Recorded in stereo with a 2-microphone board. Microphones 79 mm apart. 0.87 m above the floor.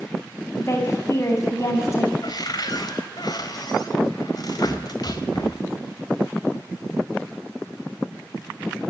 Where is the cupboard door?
55° left (ahead or behind), 2.5 m.